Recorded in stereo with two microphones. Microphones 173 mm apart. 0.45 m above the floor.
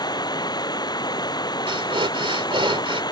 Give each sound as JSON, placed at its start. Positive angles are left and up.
{"t": 0.0, "sound": "running water", "side_deg": 25}
{"t": 1.7, "sound": "breathing", "side_deg": -30}